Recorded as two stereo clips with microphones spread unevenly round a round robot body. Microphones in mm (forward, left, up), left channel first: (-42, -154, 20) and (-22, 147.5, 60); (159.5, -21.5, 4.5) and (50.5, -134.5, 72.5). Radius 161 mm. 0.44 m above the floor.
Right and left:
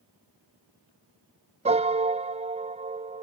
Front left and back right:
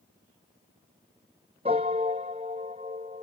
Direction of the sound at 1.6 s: 155° left.